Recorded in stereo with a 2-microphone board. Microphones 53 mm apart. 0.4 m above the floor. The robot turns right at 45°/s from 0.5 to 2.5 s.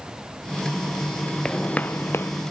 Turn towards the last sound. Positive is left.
turn(degrees=60)